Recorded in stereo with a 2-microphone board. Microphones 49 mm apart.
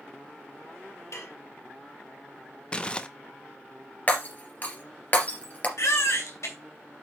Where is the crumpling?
20° left (ahead or behind), 0.7 m.